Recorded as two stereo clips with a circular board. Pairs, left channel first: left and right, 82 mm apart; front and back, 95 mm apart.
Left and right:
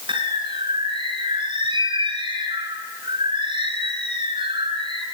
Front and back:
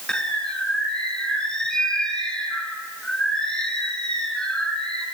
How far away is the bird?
About 3 m.